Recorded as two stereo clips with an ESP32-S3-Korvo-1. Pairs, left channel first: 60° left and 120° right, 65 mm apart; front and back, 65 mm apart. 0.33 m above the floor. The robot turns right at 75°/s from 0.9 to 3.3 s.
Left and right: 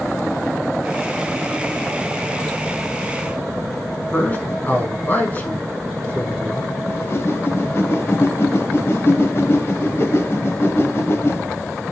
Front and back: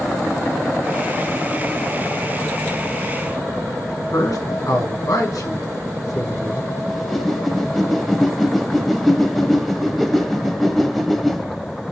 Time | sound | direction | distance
4.1 | a man speaking | straight ahead | 4.5 m
6.9 | a whoosh | 90° left | 1.0 m